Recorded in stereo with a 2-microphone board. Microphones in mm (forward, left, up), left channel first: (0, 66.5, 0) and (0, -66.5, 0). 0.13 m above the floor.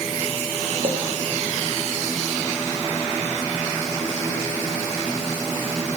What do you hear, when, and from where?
0.8 s a clink: 40° right (ahead or behind), 3.5 m